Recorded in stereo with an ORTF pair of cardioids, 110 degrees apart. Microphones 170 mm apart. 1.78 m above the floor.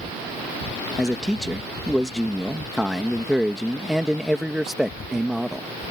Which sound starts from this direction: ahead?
A man speaking, at 1.0 s.